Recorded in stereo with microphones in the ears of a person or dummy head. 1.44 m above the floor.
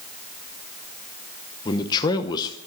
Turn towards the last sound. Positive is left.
turn(degrees=25)  # may be behind; listen again after turning